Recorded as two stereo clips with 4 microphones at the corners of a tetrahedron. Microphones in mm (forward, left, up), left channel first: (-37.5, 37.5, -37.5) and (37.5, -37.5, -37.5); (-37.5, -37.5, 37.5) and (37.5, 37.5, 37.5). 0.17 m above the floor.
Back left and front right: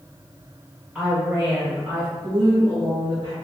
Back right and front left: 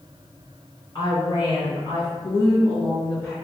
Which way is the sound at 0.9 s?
140° right.